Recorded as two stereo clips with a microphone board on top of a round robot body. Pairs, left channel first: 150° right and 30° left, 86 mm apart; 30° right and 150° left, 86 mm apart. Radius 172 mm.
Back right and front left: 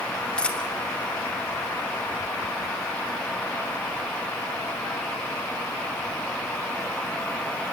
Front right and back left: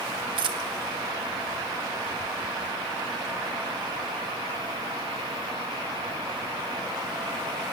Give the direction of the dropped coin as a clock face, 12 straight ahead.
8 o'clock.